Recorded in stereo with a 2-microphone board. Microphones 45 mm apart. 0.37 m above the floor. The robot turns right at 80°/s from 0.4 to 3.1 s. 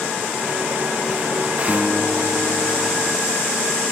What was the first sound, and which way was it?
A guitar, 40° right.